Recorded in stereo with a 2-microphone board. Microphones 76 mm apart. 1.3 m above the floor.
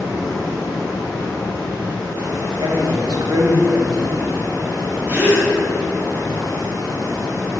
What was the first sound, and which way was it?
Running water, 50° left (ahead or behind).